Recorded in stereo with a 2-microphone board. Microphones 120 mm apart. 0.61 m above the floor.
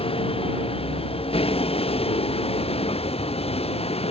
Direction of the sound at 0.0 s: 45° left (ahead or behind).